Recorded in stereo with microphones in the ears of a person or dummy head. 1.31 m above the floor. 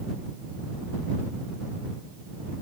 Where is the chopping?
I don't hear chopping.